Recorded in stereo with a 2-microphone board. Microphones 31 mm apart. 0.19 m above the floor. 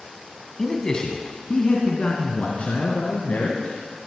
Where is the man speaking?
20° left (ahead or behind), 1.6 m; by 3.8 s 60° left (ahead or behind), 3.5 m.